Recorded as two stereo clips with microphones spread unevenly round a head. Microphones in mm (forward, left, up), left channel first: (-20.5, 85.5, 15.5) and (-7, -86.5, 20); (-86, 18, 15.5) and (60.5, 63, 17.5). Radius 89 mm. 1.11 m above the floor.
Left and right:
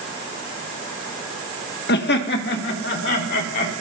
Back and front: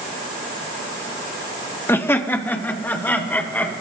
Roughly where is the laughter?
Behind left.